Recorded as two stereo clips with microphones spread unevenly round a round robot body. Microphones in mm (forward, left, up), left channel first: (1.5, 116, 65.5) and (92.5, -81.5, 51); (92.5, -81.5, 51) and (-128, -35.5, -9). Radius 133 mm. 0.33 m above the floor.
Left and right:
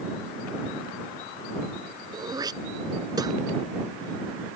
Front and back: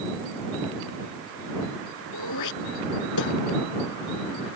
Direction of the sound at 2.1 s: 5° left.